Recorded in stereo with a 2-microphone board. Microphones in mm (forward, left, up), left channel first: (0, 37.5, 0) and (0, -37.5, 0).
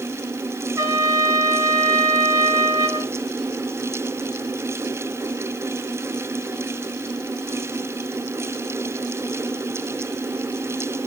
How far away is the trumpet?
About 3 m.